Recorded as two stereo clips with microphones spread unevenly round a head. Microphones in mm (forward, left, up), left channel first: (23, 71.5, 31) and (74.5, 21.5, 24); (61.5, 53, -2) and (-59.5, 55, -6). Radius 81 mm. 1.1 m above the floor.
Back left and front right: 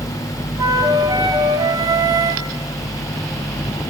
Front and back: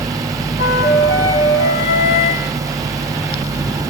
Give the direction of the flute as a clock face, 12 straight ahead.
12 o'clock.